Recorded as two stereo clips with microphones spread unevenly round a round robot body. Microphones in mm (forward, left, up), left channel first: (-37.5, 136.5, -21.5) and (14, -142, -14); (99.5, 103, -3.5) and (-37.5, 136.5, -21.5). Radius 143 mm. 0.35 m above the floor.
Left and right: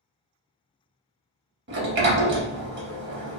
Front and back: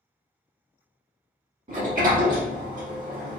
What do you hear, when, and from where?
1.7 s a sliding door: 135° right, 0.6 m